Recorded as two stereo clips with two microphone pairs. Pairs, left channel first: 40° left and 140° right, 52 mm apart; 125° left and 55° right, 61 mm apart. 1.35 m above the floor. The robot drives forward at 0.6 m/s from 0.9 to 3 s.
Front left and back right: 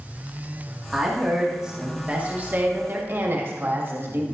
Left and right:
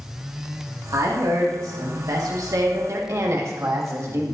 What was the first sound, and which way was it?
A woman speaking, 50° right.